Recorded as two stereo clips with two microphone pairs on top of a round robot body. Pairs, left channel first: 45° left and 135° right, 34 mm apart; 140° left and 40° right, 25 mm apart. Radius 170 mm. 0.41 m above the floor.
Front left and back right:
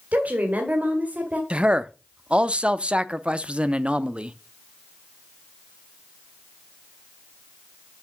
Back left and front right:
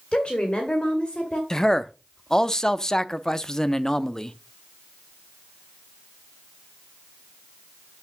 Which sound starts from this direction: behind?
A woman speaking, at 0.1 s.